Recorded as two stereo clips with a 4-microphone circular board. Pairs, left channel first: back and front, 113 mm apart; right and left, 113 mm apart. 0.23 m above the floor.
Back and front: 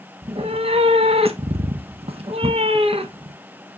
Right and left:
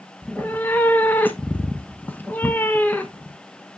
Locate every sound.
0.2 s a cat meowing: 15° right, 0.8 m